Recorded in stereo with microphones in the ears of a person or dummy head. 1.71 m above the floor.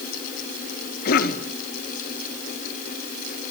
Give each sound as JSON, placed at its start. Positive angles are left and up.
{"t": 1.1, "sound": "a cough", "side_deg": 60, "distance_m": 2.0}